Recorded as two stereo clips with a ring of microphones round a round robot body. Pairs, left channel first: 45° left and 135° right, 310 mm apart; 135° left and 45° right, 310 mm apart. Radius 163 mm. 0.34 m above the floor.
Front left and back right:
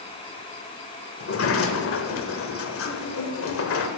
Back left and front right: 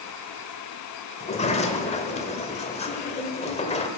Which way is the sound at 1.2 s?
70° left.